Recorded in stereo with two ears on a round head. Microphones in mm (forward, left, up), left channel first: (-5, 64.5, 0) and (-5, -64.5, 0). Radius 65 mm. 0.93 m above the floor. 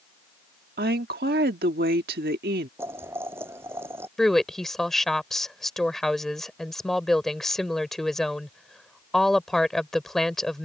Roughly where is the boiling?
Centre.